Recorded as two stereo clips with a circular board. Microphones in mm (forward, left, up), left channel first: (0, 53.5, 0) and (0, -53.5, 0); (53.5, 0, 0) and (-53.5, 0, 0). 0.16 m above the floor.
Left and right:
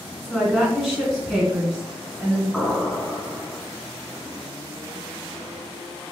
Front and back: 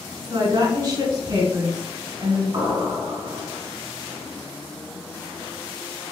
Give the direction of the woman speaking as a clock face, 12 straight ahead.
6 o'clock.